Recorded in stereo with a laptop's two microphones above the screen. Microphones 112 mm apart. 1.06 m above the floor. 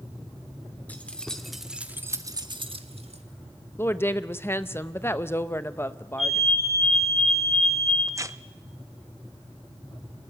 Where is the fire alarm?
80° left, 9 m.